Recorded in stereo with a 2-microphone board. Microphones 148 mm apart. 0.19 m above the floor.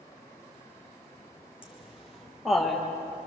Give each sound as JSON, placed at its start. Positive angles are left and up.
{"t": 1.6, "sound": "laughter", "side_deg": -5, "distance_m": 6.0}